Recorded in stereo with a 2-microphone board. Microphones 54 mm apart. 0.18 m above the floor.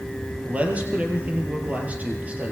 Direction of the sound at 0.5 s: 25° right (ahead or behind).